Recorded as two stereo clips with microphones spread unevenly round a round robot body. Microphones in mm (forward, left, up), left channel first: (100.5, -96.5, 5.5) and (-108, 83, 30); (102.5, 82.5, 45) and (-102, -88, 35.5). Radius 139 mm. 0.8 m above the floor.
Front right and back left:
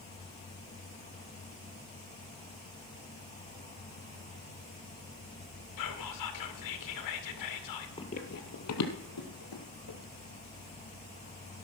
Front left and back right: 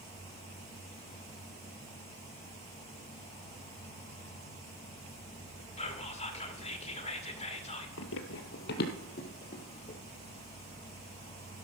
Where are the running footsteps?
30° left, 1.0 m; by 10.0 s 25° right, 2.5 m.